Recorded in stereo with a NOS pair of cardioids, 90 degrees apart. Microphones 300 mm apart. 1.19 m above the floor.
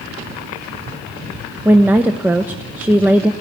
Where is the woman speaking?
5° right, 0.8 m.